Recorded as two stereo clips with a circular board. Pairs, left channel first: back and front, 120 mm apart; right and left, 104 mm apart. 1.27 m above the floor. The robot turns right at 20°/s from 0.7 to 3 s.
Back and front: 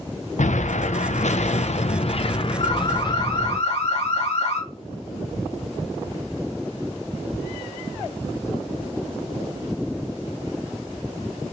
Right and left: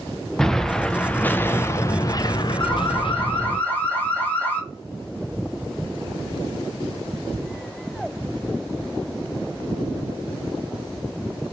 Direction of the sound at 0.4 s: 175° right.